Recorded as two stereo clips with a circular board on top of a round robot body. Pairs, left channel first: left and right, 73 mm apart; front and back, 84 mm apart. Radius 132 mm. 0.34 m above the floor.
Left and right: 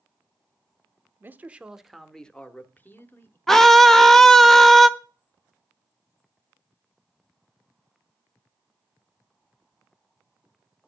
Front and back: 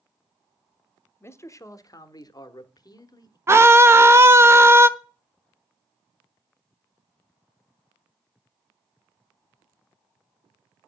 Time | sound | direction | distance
1.2 | a man speaking | 45° right | 1.0 m
3.5 | a scream | 170° left | 0.9 m